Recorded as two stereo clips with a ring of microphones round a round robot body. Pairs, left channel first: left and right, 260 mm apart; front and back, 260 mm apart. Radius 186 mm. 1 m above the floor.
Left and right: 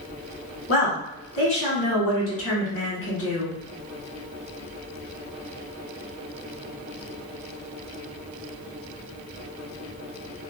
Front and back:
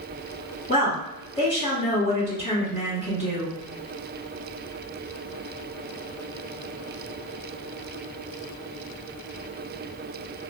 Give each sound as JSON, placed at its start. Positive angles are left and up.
{"t": 0.7, "sound": "a woman speaking", "azimuth_deg": 60, "distance_m": 1.9}